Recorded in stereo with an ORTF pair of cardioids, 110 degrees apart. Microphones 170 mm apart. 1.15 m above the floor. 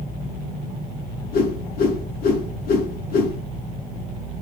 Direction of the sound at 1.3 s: 60° left.